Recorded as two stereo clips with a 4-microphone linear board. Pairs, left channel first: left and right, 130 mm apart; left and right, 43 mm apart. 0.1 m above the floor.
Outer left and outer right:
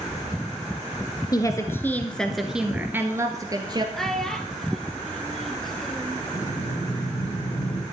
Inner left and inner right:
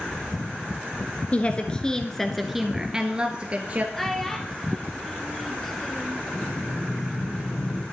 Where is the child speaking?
5° left (ahead or behind), 1.5 m.